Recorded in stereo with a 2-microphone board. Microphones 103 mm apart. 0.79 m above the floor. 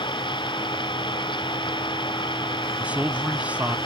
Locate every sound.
0.0 s an engine running: 50° left (ahead or behind)
2.8 s a man speaking: 10° right (ahead or behind)